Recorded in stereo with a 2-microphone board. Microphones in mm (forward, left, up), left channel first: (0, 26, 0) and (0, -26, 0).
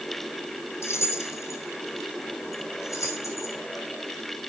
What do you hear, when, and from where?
0.8 s keys jangling: 55° left (ahead or behind), 3.5 m; by 3.5 s 80° left, 6 m